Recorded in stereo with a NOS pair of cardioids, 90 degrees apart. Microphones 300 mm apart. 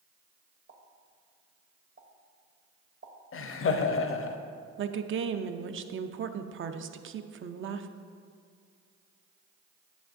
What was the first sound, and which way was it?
A pop, 45° right.